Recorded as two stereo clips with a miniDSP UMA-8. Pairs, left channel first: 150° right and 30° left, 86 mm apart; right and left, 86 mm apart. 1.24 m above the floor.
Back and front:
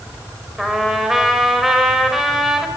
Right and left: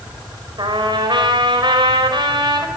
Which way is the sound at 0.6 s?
115° left.